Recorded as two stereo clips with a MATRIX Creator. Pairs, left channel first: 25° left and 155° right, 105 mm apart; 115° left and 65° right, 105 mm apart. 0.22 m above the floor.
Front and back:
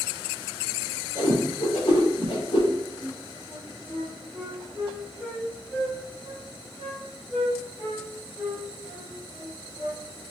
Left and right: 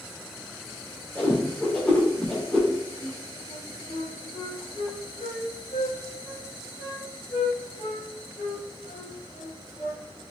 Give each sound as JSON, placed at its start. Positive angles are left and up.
{"t": 1.1, "sound": "a whoosh", "azimuth_deg": 40, "distance_m": 2.5}
{"t": 3.0, "sound": "a flute", "azimuth_deg": 85, "distance_m": 1.7}